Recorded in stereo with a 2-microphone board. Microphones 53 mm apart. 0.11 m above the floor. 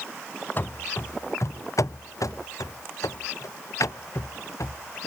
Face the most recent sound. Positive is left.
turn(degrees=65)  # may be behind; listen again after turning